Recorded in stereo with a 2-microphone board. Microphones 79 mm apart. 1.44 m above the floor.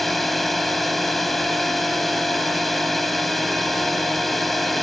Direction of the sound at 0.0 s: Centre (ahead or behind).